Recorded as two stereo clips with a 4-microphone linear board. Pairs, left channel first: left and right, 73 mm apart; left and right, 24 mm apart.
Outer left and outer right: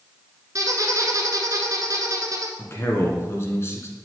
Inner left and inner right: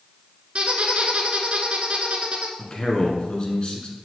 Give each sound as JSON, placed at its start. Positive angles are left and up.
{"t": 0.6, "sound": "a squeak", "side_deg": -50, "distance_m": 1.0}
{"t": 2.6, "sound": "a man speaking", "side_deg": 35, "distance_m": 1.6}